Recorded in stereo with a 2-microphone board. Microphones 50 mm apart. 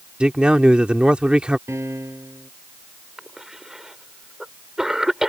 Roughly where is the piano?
Right.